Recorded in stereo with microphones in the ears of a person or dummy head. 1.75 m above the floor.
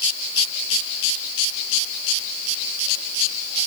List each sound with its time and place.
Only background noise.